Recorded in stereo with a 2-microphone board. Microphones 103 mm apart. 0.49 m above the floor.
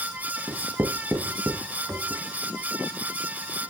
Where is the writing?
20° right (ahead or behind), 2 m.